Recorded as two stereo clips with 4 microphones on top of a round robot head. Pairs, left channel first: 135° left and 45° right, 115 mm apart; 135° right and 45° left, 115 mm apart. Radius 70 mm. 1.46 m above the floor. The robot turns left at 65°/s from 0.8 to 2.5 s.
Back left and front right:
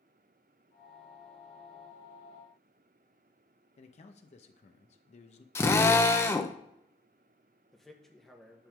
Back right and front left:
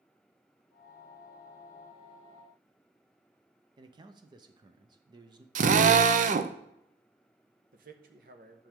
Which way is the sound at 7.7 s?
45° left.